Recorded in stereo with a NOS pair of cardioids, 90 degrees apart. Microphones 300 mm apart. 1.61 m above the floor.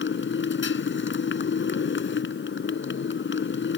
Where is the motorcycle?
40° left.